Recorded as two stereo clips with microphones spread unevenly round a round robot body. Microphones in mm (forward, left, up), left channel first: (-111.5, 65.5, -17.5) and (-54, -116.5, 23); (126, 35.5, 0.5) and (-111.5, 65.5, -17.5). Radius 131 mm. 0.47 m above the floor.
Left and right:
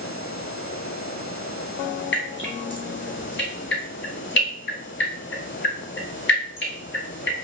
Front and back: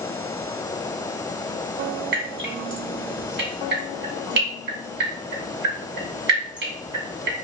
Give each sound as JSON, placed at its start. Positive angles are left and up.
{"t": 2.1, "sound": "dripping", "azimuth_deg": 130, "distance_m": 1.7}